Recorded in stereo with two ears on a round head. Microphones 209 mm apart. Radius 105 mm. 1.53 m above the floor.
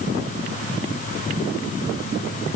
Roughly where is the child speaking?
No child speaking in this recording.